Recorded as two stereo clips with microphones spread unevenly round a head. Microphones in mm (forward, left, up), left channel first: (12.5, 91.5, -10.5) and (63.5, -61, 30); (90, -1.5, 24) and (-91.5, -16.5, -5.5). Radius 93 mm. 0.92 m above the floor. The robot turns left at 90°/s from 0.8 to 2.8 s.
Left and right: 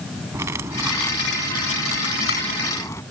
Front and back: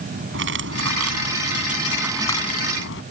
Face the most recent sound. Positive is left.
turn(degrees=35)